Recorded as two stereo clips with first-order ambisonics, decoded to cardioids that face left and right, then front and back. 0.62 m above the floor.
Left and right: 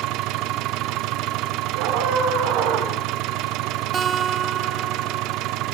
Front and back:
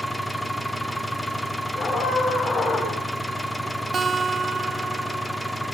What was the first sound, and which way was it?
An engine running, 85° right.